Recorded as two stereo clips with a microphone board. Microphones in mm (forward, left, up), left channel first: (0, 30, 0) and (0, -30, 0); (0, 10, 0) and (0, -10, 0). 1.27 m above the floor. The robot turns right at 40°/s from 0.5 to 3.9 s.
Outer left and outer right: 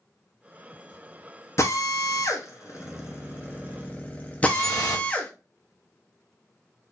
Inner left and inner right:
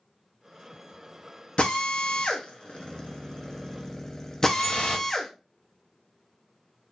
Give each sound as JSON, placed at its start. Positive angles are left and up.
{"t": 1.6, "sound": "a drill", "side_deg": 50, "distance_m": 1.0}
{"t": 4.5, "sound": "dripping", "side_deg": 70, "distance_m": 2.5}